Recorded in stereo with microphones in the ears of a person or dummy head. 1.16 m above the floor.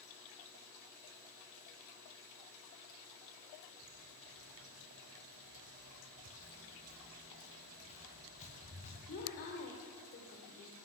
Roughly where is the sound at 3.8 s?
Right.